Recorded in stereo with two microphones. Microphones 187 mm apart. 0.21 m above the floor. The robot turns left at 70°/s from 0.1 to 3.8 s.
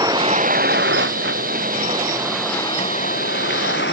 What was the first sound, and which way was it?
A vehicle, 20° right.